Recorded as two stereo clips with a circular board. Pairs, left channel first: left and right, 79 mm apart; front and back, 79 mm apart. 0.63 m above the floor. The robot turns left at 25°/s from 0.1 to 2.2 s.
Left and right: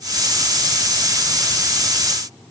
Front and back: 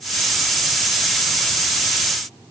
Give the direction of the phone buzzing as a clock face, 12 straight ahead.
No phone buzzing in this recording.